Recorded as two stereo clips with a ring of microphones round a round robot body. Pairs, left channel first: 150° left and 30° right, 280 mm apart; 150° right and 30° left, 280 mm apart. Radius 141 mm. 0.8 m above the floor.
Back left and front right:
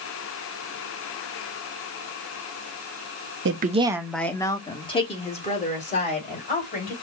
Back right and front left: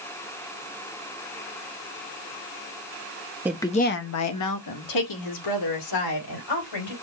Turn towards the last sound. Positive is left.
turn(degrees=-145)